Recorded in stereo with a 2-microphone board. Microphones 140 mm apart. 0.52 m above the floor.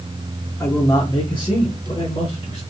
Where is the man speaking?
20° left (ahead or behind), 0.7 m; by 2.6 s 40° left (ahead or behind), 1.5 m.